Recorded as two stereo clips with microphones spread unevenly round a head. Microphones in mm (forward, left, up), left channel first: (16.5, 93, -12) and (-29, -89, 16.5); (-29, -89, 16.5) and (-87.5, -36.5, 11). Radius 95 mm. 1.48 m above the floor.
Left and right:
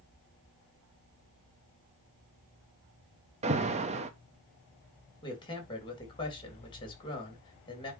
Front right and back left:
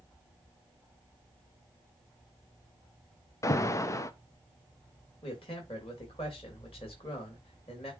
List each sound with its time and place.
3.4 s an alarm: 60° right, 0.8 m
5.2 s a man speaking: 10° left, 3 m